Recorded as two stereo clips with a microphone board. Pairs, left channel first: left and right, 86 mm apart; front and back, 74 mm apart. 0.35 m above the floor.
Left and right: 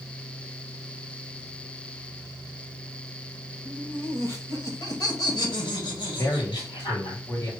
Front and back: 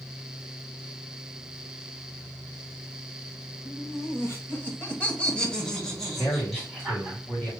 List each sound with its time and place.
3.6 s laughter: 20° left, 1.3 m; by 7.2 s 95° left, 2.5 m
6.2 s a man speaking: 55° left, 2.5 m